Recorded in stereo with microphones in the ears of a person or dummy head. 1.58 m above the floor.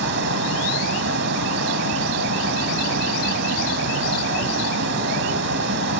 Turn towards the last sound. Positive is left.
turn(degrees=-65)  # may be behind; listen again after turning